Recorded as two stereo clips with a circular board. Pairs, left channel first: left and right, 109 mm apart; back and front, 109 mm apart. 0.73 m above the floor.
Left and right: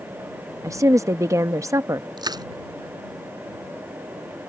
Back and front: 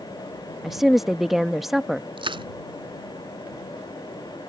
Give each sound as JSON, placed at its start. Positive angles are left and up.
{"t": 0.6, "sound": "a woman speaking", "azimuth_deg": -85}
{"t": 2.2, "sound": "crushing", "azimuth_deg": -40}